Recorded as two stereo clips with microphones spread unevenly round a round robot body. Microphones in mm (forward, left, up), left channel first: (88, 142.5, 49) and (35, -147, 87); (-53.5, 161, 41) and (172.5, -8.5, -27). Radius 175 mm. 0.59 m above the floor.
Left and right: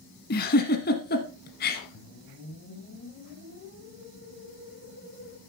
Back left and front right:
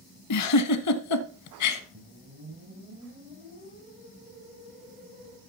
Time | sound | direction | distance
0.3 | a giggle | 145° left | 0.9 m
1.9 | a whoosh | 25° left | 3 m